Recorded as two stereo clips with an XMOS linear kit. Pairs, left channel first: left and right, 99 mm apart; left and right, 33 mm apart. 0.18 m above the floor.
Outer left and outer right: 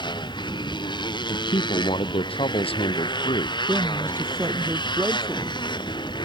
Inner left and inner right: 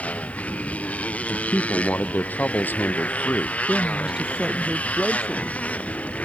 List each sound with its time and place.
0.0 s a motorcycle: 50° left (ahead or behind)
1.2 s a man speaking: 75° left (ahead or behind)
3.7 s a man speaking: 25° right (ahead or behind)